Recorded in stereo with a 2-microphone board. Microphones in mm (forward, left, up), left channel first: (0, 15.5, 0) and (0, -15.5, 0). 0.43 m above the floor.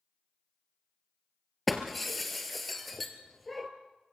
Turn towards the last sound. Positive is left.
turn(degrees=0)  # may be behind; listen again after turning